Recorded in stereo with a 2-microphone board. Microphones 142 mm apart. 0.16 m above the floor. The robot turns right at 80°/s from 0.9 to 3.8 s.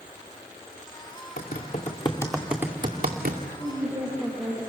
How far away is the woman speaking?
About 5.5 m.